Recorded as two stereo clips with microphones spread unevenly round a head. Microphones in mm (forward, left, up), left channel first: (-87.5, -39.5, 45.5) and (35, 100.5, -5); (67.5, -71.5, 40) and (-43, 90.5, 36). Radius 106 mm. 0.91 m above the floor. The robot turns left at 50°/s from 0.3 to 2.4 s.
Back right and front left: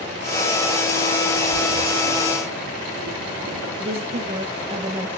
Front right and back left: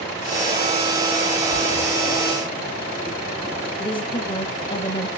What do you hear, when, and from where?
1.5 s a splash: 95° left, 2 m; by 3.7 s 50° left, 2 m
3.8 s a woman speaking: 5° left, 0.9 m